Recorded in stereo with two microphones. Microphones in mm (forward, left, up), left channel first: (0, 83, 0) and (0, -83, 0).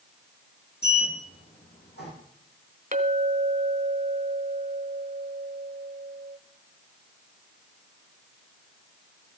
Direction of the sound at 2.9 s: 50° right (ahead or behind).